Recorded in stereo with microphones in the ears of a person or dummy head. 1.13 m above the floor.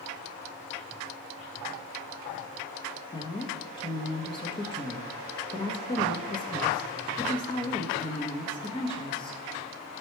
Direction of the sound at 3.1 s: 20° left (ahead or behind).